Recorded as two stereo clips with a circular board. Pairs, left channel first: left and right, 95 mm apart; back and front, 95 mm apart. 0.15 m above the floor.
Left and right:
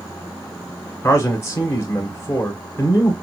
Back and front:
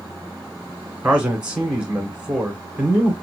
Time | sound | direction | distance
1.0 | a man speaking | 70° left | 1.9 m